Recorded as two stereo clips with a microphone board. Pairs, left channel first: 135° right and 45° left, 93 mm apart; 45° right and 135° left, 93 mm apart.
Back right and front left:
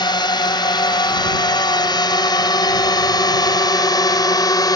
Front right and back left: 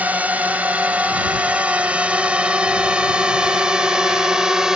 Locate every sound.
0.0 s a drone: 155° right; by 4.8 s 145° right